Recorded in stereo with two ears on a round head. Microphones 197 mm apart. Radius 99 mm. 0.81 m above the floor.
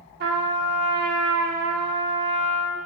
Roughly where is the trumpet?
Right.